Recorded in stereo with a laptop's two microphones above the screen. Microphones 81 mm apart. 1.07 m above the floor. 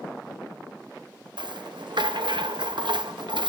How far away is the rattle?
About 0.7 m.